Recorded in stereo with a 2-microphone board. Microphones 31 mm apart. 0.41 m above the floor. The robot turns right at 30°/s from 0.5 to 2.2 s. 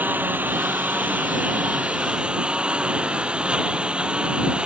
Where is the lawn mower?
90° right; by 4.7 s 40° right.